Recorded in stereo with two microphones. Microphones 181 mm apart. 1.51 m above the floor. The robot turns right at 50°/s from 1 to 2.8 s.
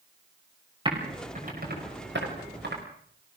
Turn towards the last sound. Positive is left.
turn(degrees=-60)  # may be behind; listen again after turning